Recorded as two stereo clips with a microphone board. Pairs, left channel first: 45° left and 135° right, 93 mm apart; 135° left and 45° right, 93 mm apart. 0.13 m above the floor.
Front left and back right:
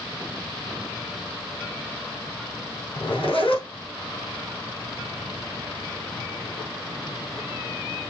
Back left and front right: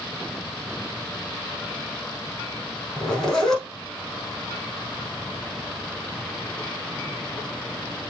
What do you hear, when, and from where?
3.0 s a zipper: 50° left, 4.5 m